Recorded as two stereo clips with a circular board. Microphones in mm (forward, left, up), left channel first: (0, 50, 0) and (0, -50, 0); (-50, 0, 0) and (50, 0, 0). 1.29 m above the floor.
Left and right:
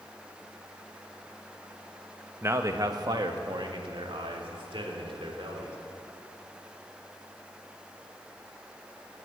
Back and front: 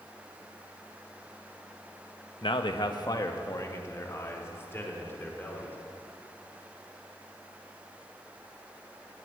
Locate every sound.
2.4 s a man speaking: 155° right, 1.0 m; by 5.8 s 110° right, 3.5 m